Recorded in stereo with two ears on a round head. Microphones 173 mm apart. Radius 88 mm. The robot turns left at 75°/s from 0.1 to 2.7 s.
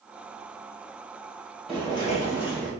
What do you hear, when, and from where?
1.7 s footsteps: centre (ahead or behind), 1.4 m; by 2.7 s 5° left (ahead or behind), 1.3 m